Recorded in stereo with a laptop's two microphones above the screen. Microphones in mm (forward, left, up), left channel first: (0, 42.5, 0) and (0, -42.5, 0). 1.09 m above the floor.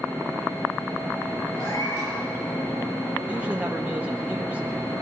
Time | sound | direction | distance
1.6 | a cat meowing | 75° left (ahead or behind) | 6.5 m
3.2 | a man speaking | 20° right (ahead or behind) | 0.8 m